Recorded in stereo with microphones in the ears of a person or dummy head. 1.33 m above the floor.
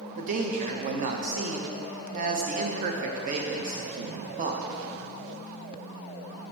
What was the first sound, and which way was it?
A man speaking, 40° right (ahead or behind).